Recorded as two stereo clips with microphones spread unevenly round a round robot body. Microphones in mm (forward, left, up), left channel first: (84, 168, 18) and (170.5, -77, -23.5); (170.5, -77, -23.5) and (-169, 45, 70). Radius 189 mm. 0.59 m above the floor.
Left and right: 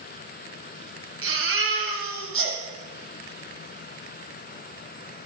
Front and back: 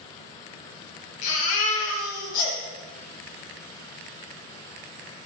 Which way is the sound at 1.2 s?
35° right.